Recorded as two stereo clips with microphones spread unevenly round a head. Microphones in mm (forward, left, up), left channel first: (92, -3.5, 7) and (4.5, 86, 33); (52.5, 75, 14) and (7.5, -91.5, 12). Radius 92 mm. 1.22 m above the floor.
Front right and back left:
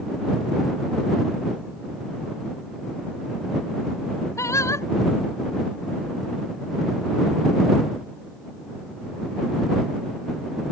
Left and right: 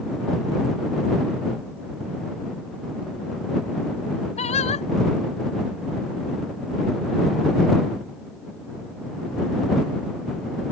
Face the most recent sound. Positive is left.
turn(degrees=25)